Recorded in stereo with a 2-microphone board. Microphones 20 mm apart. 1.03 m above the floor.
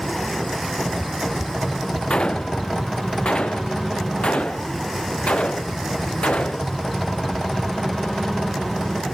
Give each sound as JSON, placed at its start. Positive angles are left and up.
{"t": 2.1, "sound": "a gunshot", "side_deg": 60}